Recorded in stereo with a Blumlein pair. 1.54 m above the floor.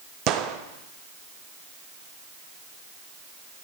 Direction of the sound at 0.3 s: 35° right.